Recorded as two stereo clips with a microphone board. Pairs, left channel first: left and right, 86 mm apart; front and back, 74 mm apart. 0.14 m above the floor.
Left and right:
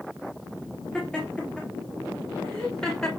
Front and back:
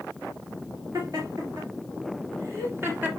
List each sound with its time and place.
0.9 s laughter: 165° left, 2.5 m; by 3.1 s 160° left, 1.4 m